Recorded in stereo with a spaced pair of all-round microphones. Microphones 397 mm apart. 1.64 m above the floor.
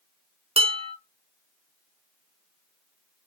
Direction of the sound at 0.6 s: 15° right (ahead or behind).